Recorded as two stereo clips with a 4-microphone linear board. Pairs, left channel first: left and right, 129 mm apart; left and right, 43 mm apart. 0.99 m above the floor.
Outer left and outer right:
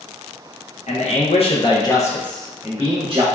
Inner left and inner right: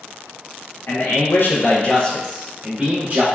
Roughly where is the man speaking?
Left.